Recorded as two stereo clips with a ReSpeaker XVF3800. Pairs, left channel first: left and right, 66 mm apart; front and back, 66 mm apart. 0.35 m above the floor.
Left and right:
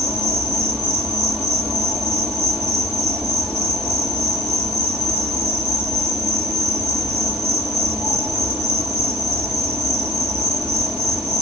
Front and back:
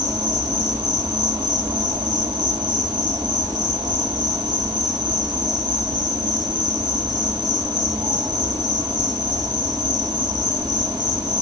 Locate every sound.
0.0 s an insect: 160° right, 5 m